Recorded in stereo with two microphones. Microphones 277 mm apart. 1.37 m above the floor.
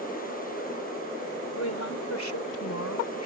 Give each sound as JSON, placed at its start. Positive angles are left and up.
{"t": 1.6, "sound": "a woman speaking", "side_deg": 75}